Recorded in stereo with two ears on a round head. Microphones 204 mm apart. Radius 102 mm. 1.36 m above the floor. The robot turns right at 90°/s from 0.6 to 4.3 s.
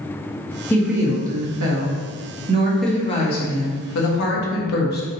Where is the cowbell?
No cowbell in this recording.